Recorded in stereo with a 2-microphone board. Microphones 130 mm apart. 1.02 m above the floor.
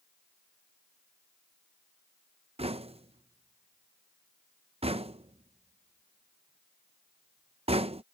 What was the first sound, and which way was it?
Knocking, 55° right (ahead or behind).